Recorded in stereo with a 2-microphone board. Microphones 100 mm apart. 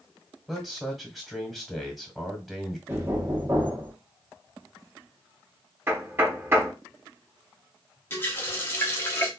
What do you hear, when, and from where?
0.5 s a man speaking: centre (ahead or behind), 1.2 m
2.9 s knocking: 20° right (ahead or behind), 0.9 m
5.9 s knocking: 20° right (ahead or behind), 0.9 m
8.1 s a running tap: 25° left (ahead or behind), 0.8 m